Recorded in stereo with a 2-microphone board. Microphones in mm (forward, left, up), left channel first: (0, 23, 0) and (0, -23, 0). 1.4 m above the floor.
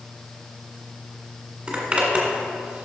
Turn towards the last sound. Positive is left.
turn(degrees=-20)  # may be behind; listen again after turning